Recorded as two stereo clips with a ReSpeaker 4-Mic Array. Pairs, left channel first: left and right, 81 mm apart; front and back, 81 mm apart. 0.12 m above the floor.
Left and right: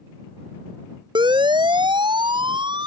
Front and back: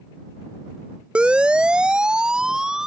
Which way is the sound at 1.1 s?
105° right.